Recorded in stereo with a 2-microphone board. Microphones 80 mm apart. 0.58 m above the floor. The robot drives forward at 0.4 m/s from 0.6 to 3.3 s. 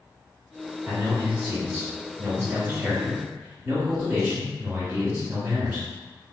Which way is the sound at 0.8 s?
20° right (ahead or behind).